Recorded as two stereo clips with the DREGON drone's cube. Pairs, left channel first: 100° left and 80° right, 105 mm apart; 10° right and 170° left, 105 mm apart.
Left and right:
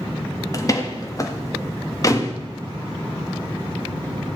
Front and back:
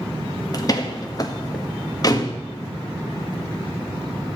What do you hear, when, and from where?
0.5 s a door slam: 40° left, 1.6 m